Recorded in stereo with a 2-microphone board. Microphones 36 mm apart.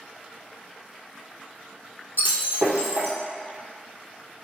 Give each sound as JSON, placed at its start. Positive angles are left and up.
{"t": 2.2, "sound": "breaking glass", "side_deg": -75, "distance_m": 1.2}